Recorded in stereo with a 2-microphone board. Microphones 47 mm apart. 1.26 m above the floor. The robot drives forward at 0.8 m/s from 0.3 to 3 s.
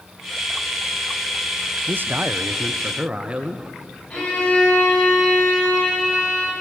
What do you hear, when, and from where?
1.9 s a man speaking: 50° right (ahead or behind), 0.6 m; by 3.8 s 20° right (ahead or behind), 1.2 m
4.1 s a violin: 35° left (ahead or behind), 9.5 m